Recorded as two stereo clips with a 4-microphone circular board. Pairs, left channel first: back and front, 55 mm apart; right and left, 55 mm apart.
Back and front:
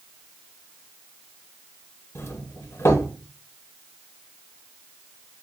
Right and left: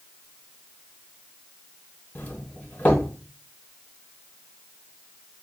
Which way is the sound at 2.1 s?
155° right.